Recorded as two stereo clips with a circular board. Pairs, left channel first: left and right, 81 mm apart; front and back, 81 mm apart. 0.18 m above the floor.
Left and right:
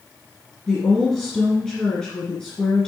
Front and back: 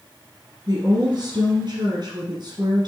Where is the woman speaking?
170° left, 2 m.